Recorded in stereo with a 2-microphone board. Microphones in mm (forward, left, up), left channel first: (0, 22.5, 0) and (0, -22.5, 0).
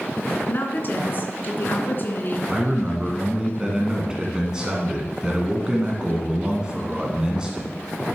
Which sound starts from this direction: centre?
A man speaking, at 2.5 s.